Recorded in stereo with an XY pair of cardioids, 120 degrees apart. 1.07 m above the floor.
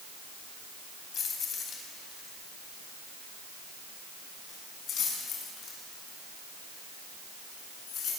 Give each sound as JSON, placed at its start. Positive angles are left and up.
{"t": 1.1, "sound": "keys jangling", "azimuth_deg": 45, "distance_m": 4.5}